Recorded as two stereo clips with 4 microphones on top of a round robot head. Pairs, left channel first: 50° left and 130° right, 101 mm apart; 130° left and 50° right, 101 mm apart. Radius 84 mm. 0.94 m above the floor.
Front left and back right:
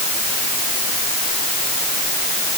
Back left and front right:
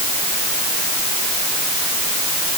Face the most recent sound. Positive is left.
No sound to turn to.